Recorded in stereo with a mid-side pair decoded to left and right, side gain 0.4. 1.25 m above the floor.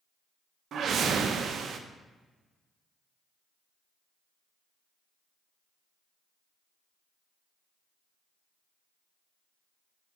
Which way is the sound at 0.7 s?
65° right.